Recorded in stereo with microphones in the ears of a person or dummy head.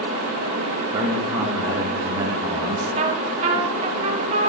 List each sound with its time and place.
0.9 s a man speaking: 20° right (ahead or behind), 1.0 m
3.0 s a trumpet: 30° right (ahead or behind), 0.9 m